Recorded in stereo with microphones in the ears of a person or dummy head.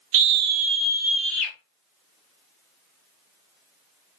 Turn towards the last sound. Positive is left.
turn(degrees=10)  # may be behind; listen again after turning